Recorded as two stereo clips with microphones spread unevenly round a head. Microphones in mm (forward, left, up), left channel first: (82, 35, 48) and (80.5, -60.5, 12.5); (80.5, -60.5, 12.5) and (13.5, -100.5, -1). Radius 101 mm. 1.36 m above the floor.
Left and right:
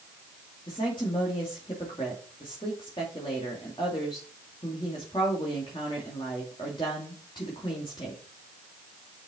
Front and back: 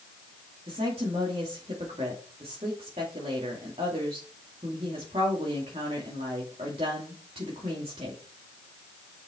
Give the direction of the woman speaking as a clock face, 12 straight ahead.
7 o'clock.